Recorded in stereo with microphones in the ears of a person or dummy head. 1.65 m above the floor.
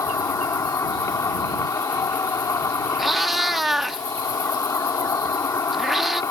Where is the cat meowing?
5° left (ahead or behind).